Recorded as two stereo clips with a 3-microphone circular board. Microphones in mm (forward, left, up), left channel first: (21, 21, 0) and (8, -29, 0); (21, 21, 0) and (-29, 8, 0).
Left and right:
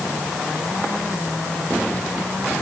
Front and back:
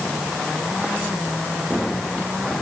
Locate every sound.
Only background noise.